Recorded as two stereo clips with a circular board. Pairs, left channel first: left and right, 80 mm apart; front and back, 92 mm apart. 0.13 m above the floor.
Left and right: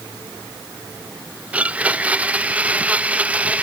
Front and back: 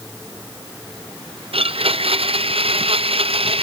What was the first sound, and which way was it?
A blender, 165° right.